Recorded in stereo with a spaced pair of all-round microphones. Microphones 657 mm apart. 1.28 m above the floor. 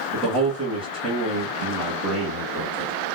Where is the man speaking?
25° right (ahead or behind), 1.7 m.